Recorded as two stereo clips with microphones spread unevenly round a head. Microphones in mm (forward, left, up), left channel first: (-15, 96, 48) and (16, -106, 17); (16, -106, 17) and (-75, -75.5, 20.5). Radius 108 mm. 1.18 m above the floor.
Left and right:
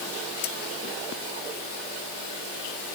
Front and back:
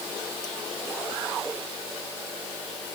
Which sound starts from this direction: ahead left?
Cutlery clinking, at 0.4 s.